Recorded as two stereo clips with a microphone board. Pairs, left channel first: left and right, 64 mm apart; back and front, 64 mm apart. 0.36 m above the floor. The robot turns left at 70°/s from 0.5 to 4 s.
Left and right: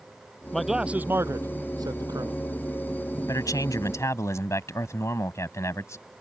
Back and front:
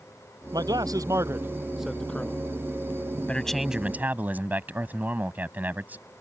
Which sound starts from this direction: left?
A man speaking, at 3.3 s.